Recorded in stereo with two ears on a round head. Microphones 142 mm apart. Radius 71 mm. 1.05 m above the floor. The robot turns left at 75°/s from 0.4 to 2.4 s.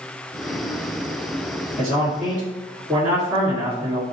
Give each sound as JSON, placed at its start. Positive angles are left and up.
{"t": 1.8, "sound": "a man speaking", "azimuth_deg": 35, "distance_m": 1.9}